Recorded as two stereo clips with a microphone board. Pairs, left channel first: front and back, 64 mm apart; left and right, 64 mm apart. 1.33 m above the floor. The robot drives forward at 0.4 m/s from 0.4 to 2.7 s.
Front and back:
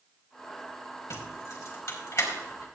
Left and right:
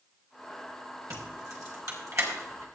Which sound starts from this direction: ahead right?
Keys jangling, at 1.1 s.